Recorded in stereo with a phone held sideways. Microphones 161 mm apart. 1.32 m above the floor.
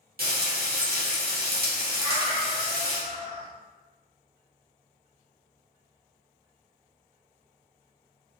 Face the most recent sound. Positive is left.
turn(degrees=-25)  # may be behind; listen again after turning